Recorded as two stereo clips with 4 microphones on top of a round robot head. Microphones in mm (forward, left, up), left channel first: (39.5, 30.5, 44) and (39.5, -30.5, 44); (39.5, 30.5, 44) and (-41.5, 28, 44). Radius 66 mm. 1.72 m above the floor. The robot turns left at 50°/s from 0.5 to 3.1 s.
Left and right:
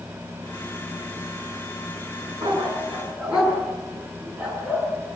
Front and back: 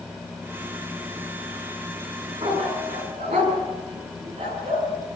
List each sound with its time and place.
2.4 s a dog barking: 135° right, 6.5 m; by 4.9 s 170° right, 6.5 m